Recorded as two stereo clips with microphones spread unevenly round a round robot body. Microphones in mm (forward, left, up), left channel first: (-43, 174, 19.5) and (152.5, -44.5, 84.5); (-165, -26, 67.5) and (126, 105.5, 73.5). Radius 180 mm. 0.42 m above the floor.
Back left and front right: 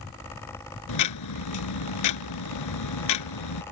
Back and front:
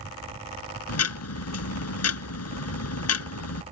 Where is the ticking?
160° left.